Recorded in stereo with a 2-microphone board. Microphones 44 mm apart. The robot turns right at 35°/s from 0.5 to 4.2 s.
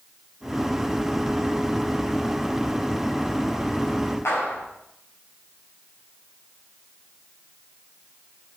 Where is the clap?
80° left, 6.5 m.